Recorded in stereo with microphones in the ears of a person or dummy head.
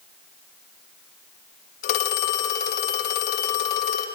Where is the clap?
I don't hear a clap.